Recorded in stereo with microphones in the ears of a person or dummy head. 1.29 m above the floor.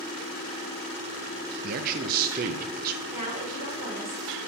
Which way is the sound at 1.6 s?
45° right (ahead or behind).